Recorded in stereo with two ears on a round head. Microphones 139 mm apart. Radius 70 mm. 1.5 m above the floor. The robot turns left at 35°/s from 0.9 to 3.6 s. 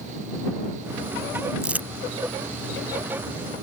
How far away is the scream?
I don't hear a scream.